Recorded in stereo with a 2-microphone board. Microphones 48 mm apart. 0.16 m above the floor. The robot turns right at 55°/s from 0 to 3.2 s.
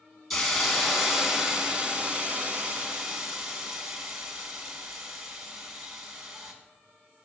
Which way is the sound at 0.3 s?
5° left (ahead or behind).